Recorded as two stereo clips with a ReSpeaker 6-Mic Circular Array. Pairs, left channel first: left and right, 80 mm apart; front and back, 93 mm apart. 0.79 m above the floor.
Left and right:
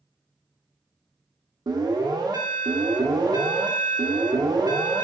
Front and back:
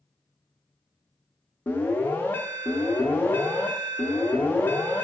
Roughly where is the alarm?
Right.